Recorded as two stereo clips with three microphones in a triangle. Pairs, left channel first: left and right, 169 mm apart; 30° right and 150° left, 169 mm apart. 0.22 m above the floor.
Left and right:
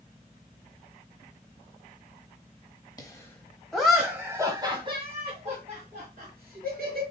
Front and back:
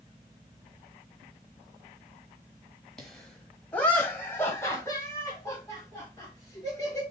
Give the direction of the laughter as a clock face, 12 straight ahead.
10 o'clock.